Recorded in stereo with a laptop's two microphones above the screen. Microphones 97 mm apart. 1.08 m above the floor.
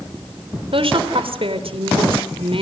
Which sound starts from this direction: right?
A woman speaking, at 0.7 s.